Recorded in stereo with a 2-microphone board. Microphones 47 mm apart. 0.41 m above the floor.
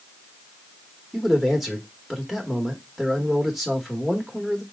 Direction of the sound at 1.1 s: Centre (ahead or behind).